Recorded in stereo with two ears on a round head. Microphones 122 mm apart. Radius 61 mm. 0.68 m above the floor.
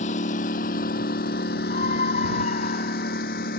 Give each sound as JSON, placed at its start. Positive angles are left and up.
{"t": 0.0, "sound": "a lawn mower", "side_deg": 55}
{"t": 1.7, "sound": "a scream", "side_deg": 55}